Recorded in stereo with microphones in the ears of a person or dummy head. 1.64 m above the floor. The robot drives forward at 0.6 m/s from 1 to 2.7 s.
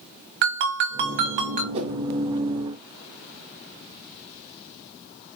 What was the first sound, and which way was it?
A ringtone, 40° right (ahead or behind).